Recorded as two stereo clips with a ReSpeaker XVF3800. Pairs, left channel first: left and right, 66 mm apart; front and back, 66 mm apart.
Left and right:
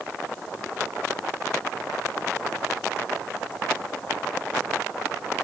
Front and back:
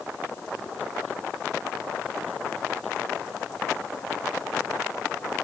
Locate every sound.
Only background noise.